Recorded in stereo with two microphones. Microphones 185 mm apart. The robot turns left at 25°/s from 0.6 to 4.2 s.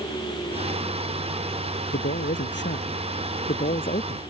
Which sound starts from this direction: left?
A man speaking, at 1.9 s.